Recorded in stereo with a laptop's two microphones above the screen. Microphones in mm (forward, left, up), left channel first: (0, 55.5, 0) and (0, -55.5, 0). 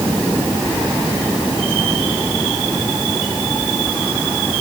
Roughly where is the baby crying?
I don't hear a baby crying.